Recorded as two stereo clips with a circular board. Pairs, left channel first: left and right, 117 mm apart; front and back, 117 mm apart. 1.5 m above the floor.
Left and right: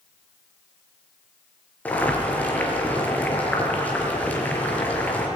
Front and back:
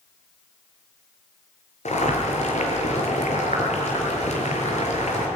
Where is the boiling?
15° left, 5 m.